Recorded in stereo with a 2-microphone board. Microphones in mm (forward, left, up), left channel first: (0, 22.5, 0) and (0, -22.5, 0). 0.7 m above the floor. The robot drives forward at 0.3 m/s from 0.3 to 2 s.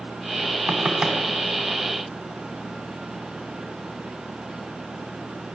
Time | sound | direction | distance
0.7 | knocking | 25° right (ahead or behind) | 5 m